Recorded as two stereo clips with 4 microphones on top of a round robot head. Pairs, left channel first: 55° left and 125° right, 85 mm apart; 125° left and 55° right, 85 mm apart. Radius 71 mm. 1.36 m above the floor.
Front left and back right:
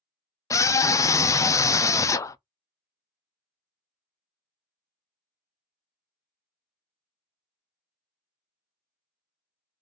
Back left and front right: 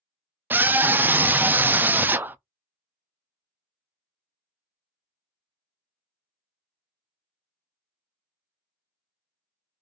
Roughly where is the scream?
Ahead.